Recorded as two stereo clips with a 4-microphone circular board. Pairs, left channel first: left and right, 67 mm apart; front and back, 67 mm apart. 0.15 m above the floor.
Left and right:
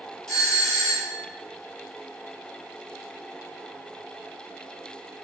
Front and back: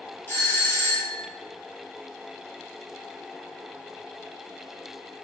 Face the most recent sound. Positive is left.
turn(degrees=25)